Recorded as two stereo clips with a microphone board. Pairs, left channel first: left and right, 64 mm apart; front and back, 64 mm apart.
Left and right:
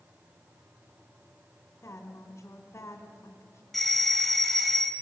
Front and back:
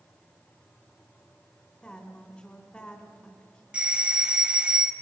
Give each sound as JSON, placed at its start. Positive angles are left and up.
{"t": 1.8, "sound": "a woman speaking", "azimuth_deg": 70, "distance_m": 2.0}
{"t": 3.7, "sound": "a doorbell", "azimuth_deg": 165, "distance_m": 1.4}